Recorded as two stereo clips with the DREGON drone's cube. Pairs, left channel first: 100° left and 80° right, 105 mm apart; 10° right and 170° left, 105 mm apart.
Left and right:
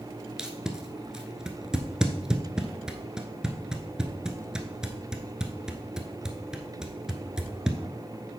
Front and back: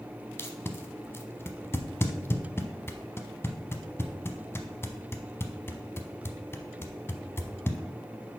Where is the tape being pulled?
10° right, 0.7 m.